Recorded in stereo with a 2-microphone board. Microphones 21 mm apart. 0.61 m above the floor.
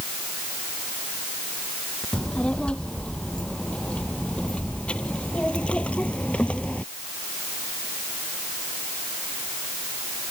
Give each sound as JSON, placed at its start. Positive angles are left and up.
{"t": 2.1, "sound": "a child speaking", "side_deg": 50}